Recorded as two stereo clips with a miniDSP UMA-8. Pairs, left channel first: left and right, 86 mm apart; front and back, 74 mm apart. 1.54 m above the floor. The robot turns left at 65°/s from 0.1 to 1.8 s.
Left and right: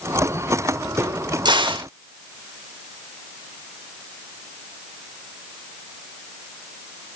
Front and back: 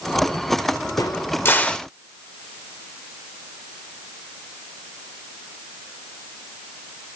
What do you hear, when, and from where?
1.0 s a crack: 30° right, 1.1 m; by 1.9 s 80° right, 1.1 m